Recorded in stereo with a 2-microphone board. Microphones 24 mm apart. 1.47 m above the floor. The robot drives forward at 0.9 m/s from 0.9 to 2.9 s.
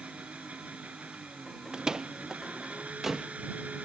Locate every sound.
0.0 s an engine running: 85° right; by 3.9 s 90° right
1.7 s a door slam: 30° right (ahead or behind); by 3.3 s 10° right (ahead or behind)